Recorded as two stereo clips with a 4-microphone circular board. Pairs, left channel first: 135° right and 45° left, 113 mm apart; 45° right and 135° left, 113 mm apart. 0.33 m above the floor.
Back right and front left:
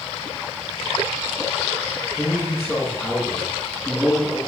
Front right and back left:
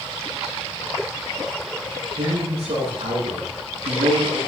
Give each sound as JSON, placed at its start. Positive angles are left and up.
{"t": 2.2, "sound": "a man speaking", "azimuth_deg": 155, "distance_m": 9.0}